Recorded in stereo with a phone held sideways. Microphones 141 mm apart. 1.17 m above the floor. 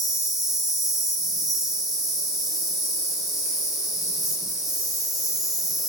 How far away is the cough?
I don't hear a cough.